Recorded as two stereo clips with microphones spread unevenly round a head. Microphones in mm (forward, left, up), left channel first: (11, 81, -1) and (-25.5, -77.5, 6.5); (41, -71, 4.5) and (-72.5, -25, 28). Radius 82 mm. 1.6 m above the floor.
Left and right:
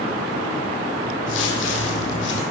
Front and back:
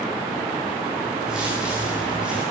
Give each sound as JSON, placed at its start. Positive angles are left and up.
{"t": 1.3, "sound": "footsteps", "azimuth_deg": 75, "distance_m": 4.5}